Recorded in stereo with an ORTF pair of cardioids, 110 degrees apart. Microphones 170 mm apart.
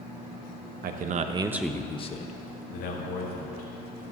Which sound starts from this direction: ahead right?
A man speaking, at 0.8 s.